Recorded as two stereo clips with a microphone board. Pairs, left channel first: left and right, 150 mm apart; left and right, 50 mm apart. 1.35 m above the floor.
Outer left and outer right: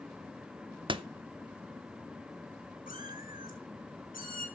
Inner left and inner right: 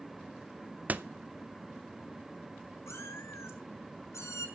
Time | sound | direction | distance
0.9 | a door slam | 35° right (ahead or behind) | 0.6 m
2.9 | a cat meowing | 65° left (ahead or behind) | 3 m